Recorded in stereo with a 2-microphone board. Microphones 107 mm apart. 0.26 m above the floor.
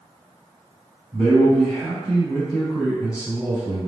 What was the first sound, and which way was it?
A man speaking, 5° left (ahead or behind).